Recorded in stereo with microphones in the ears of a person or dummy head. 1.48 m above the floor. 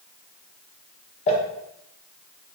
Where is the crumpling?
35° left (ahead or behind), 0.8 m.